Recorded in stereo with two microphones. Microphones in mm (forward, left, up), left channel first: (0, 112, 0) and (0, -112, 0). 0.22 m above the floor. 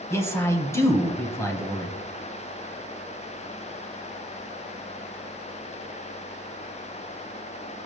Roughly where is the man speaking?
Centre.